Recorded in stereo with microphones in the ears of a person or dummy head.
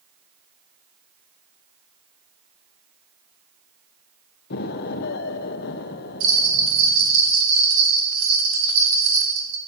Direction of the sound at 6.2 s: 65° right (ahead or behind).